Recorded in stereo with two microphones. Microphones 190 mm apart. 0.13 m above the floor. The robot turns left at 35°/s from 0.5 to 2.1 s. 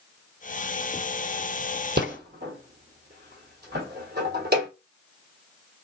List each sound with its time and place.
2.0 s a rattle: 65° right (ahead or behind), 1.0 m; by 4.7 s 60° right (ahead or behind), 1.0 m